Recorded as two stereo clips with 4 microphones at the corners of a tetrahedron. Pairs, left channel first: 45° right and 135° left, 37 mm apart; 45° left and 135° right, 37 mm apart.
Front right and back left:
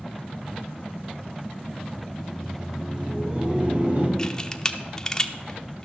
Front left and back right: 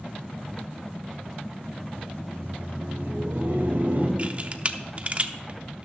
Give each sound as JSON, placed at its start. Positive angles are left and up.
{"t": 2.1, "sound": "laughter", "azimuth_deg": -140, "distance_m": 3.0}
{"t": 4.2, "sound": "a camera shutter", "azimuth_deg": -105, "distance_m": 0.7}